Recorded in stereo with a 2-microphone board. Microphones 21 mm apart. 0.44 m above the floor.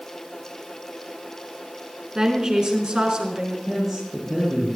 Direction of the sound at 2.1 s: 30° right (ahead or behind).